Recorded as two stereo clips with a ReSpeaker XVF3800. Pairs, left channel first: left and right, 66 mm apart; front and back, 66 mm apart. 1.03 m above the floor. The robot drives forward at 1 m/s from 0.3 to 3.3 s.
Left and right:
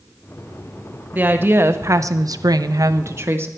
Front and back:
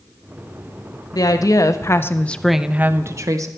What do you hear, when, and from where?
1.1 s a woman speaking: 25° right, 1.6 m; by 3.5 s 140° right, 1.1 m